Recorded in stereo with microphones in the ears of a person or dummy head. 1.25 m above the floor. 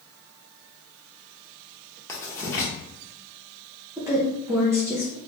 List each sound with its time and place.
2.1 s writing: 15° left (ahead or behind), 1.0 m
4.0 s a woman speaking: 10° right (ahead or behind), 0.7 m